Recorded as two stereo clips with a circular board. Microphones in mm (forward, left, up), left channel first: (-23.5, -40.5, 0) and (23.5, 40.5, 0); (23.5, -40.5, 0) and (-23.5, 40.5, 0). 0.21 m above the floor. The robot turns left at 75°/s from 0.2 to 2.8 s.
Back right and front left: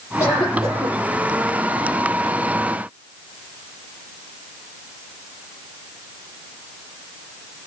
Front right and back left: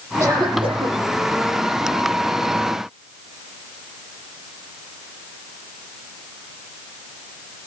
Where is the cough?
Straight behind, 8 m; by 0.9 s 125° left, 8 m.